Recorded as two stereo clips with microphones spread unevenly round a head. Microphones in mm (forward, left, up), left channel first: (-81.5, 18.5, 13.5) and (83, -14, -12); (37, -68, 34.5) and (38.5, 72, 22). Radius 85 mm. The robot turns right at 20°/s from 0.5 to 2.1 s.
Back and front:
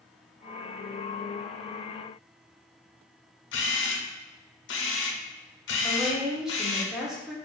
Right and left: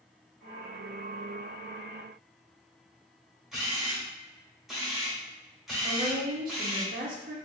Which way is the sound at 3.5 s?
Straight behind.